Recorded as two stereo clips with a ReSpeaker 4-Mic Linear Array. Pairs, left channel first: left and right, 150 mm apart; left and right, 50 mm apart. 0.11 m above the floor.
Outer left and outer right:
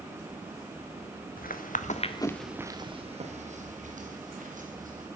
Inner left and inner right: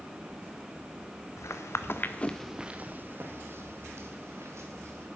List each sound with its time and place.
1.4 s footsteps: 75° left (ahead or behind), 1.2 m; by 5.1 s 65° right (ahead or behind), 3 m